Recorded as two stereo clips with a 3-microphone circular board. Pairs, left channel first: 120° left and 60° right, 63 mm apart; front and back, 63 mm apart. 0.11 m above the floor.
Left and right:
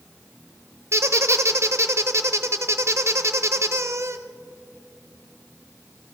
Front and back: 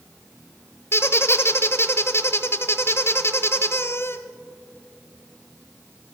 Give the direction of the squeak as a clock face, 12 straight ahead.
1 o'clock.